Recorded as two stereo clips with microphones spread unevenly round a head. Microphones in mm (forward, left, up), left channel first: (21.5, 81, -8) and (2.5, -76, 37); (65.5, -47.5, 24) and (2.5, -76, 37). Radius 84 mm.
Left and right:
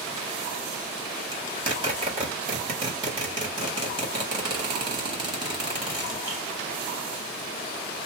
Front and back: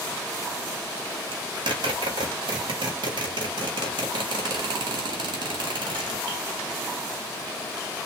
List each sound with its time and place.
1.3 s a zipper: 160° right, 1.9 m